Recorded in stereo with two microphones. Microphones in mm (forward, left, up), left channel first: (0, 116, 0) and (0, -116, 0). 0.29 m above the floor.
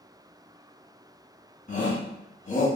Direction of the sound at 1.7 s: 40° left (ahead or behind).